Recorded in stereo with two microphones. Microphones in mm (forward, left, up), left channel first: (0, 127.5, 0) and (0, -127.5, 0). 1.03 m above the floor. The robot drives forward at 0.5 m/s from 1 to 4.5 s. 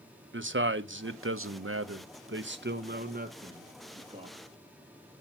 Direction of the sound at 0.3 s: 50° right (ahead or behind).